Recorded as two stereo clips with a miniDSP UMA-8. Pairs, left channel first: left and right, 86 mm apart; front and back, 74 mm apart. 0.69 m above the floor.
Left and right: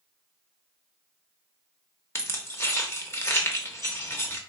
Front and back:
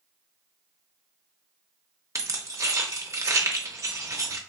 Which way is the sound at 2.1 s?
140° left.